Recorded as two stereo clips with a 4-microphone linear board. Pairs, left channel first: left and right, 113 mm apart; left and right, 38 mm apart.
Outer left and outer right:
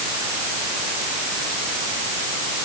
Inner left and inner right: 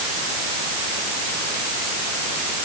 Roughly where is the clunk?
I don't hear a clunk.